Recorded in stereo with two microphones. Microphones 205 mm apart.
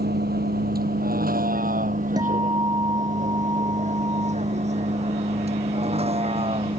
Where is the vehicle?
50° right (ahead or behind); by 6.8 s 30° right (ahead or behind).